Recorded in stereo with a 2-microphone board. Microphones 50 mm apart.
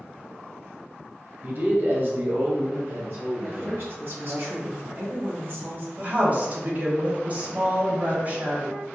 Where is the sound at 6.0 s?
35° right (ahead or behind), 1.4 m.